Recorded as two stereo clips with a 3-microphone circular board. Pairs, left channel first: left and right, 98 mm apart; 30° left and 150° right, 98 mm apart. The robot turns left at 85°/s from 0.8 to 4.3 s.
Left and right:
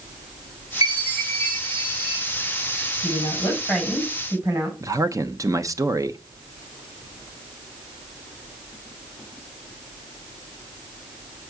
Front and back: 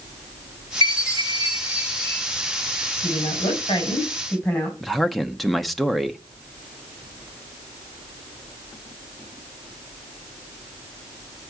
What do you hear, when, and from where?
0.8 s a chime: 140° right, 6.5 m; by 2.2 s 105° left, 6.5 m
3.0 s a woman speaking: 60° left, 4 m; by 4.7 s 45° right, 4 m
4.8 s a man speaking: 60° right, 0.7 m